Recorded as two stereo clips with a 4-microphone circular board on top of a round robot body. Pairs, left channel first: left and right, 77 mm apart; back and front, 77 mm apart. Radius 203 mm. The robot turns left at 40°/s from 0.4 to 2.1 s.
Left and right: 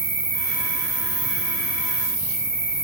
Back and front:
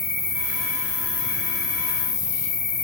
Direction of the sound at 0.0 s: 85° right.